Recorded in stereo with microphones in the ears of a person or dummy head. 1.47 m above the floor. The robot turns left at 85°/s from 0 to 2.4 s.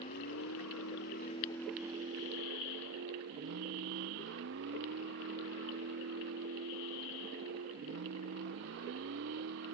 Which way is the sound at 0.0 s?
145° left.